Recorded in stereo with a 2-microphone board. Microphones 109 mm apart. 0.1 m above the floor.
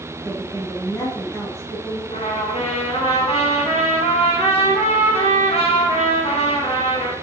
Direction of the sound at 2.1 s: 65° left (ahead or behind).